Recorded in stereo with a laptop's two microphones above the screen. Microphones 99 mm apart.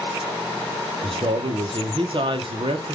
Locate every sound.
1.0 s a man speaking: 55° right (ahead or behind), 0.6 m